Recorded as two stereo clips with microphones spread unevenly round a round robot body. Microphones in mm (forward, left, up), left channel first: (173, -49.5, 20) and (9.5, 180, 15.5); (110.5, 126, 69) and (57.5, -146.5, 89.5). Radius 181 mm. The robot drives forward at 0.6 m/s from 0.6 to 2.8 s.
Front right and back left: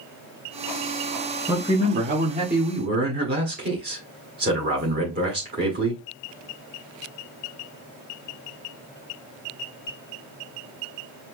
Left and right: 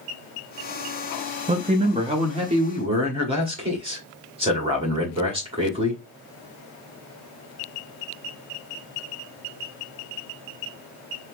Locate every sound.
1.5 s a man speaking: 165° right, 0.6 m; by 6.0 s 175° right, 1.3 m